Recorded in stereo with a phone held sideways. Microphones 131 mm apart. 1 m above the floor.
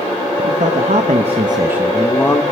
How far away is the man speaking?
About 1.1 m.